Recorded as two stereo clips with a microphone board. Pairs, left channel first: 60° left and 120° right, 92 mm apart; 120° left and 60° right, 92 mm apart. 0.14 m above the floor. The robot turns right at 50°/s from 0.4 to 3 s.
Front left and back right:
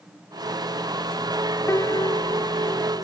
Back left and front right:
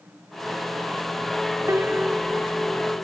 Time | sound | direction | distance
1.7 | a piano | straight ahead | ?